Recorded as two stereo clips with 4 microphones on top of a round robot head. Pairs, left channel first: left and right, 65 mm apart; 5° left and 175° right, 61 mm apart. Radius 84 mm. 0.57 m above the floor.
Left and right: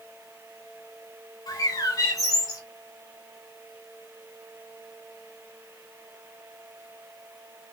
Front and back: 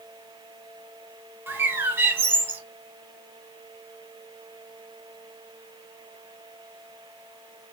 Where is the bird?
130° left, 0.7 m.